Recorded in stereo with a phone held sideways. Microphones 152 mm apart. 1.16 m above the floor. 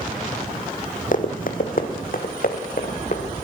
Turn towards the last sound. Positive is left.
turn(degrees=65)  # may be behind; listen again after turning